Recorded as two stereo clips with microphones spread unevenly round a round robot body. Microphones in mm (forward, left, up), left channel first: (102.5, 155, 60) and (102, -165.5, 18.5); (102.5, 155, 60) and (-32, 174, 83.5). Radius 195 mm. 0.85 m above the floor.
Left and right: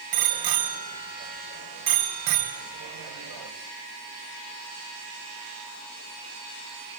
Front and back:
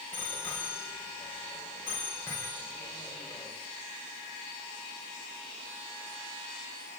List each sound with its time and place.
0.1 s a bicycle bell: 90° right, 3.5 m